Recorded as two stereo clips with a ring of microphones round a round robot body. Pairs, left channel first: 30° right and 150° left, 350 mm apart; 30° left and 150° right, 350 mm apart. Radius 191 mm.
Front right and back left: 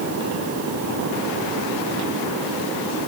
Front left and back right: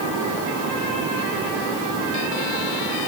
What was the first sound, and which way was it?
Only background noise.